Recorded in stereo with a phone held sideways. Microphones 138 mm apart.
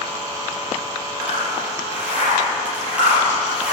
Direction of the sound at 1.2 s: 10° right (ahead or behind).